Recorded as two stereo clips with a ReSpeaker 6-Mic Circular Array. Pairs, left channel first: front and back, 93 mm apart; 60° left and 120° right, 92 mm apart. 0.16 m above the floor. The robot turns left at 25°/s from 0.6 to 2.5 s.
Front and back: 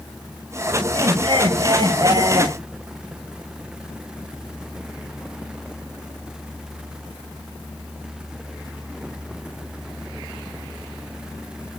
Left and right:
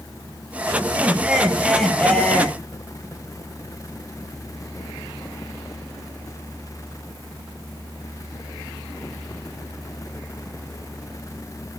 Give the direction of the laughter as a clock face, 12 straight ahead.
6 o'clock.